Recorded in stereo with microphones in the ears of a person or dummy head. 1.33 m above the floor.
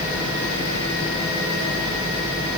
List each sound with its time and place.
Only background noise.